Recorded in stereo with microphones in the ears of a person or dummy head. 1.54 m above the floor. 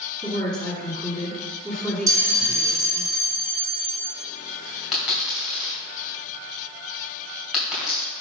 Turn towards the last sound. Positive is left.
turn(degrees=-5)  # may be behind; listen again after turning